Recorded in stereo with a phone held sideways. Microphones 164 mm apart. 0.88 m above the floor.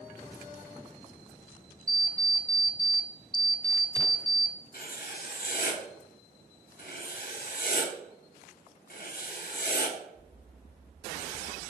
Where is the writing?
60° left (ahead or behind), 1.1 m.